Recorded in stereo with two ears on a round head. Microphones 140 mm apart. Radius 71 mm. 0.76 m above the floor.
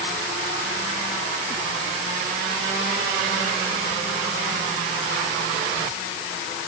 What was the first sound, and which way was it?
Only background noise.